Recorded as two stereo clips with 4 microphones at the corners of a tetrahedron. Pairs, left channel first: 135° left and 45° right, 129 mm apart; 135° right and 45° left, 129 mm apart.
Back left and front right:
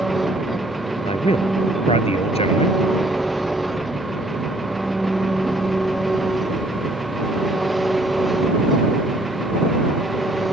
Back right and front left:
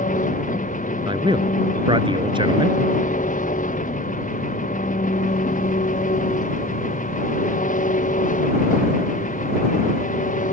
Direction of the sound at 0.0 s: 135° right.